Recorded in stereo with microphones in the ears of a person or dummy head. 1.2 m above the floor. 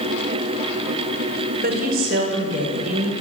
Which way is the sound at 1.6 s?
50° right (ahead or behind).